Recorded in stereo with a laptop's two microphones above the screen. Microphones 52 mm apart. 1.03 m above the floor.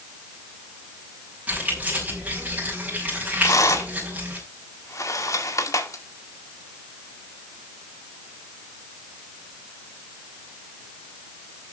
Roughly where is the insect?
No insect in this recording.